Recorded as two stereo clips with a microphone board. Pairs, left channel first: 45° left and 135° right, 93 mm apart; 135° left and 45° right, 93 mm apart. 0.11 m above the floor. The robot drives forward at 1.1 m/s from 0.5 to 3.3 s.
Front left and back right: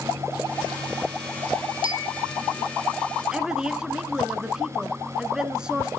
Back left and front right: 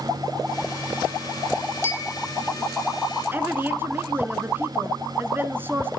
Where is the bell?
160° right, 1.7 m; by 2.3 s 165° right, 2 m.